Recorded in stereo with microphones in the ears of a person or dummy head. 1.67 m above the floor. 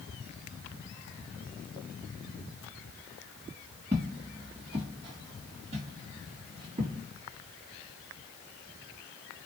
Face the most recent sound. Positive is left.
turn(degrees=-30)  # may be behind; listen again after turning